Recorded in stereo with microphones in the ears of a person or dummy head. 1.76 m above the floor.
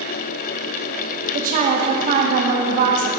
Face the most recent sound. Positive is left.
turn(degrees=-30)  # may be behind; listen again after turning